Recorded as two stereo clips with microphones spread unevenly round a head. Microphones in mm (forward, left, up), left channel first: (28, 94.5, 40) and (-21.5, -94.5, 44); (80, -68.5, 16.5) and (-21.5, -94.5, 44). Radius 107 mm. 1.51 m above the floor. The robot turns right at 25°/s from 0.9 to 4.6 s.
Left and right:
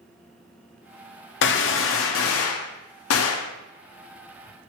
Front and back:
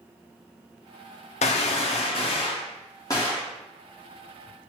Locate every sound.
1.4 s a gunshot: 40° left, 0.5 m; by 3.5 s 95° left, 0.5 m